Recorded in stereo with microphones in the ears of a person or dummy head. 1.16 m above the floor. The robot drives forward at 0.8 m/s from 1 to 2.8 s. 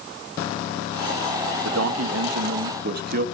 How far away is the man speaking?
About 1.2 m.